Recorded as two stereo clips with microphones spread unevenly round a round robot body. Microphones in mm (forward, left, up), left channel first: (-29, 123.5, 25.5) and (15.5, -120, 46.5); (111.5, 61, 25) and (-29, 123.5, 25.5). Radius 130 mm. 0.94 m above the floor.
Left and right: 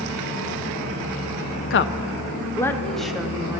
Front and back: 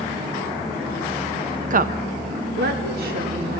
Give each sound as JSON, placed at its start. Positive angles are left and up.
{"t": 1.7, "sound": "a woman speaking", "azimuth_deg": 130, "distance_m": 0.7}